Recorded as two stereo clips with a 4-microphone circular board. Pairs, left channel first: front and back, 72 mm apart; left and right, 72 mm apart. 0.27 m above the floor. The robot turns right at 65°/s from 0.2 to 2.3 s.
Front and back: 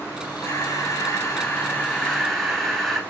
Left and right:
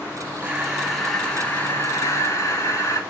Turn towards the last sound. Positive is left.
turn(degrees=85)